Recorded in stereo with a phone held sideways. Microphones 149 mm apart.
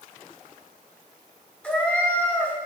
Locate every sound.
1.6 s a cat meowing: 10° left (ahead or behind), 1.6 m